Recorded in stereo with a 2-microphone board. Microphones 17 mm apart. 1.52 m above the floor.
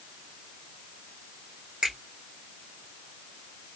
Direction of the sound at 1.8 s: 70° right (ahead or behind).